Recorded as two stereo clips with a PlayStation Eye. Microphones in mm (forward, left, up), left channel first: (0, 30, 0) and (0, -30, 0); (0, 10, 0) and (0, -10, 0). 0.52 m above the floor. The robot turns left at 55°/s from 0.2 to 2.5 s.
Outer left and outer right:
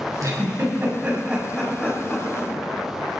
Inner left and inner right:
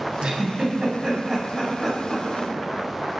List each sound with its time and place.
0.2 s a giggle: 65° right (ahead or behind), 5 m; by 2.5 s 50° left (ahead or behind), 5 m